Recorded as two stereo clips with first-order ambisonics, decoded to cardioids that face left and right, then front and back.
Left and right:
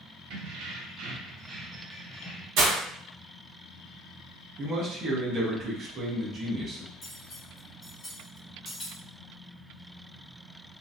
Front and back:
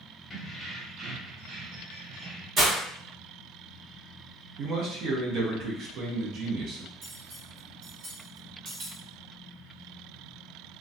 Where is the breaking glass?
115° right, 0.9 m.